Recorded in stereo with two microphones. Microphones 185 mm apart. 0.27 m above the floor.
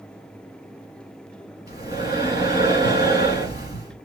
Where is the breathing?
50° left (ahead or behind), 2.5 m.